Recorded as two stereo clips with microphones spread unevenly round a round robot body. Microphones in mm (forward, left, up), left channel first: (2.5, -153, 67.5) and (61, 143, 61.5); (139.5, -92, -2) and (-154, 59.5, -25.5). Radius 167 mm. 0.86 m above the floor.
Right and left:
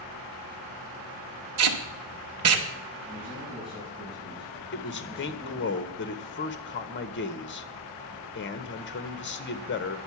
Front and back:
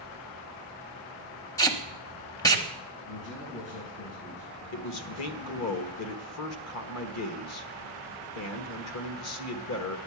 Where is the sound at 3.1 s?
5° right, 7 m.